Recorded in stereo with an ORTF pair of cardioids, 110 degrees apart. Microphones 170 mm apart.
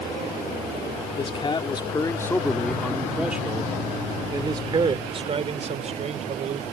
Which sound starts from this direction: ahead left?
A man speaking, at 1.2 s.